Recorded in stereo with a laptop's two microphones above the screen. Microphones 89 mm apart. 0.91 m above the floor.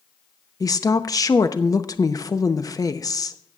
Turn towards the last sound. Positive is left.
turn(degrees=45)  # may be behind; listen again after turning